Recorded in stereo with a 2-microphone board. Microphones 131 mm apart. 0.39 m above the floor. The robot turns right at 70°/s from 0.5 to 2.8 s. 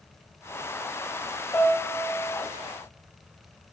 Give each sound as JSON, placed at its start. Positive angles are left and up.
{"t": 1.5, "sound": "a piano", "azimuth_deg": 20, "distance_m": 1.7}